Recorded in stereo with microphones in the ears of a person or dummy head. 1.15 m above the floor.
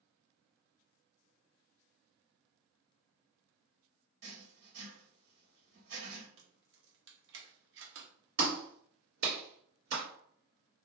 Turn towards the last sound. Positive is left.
turn(degrees=-70)  # may be behind; listen again after turning